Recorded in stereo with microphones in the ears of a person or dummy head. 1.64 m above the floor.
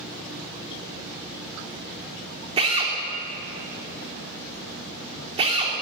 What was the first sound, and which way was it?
A drill, 35° right (ahead or behind).